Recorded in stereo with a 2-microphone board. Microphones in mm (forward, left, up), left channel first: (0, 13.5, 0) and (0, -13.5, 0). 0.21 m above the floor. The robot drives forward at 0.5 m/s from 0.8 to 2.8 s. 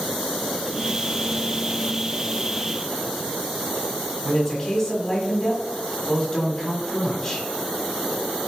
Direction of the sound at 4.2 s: 20° left (ahead or behind).